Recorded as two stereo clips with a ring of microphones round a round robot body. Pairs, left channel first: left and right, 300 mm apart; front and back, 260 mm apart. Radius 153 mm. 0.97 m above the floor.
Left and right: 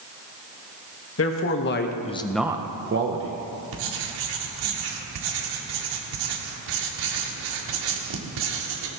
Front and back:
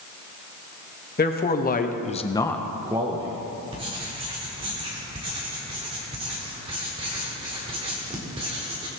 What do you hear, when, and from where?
1.2 s a man speaking: 50° left, 1.7 m; by 3.4 s 115° right, 1.3 m
3.7 s writing: 105° right, 1.7 m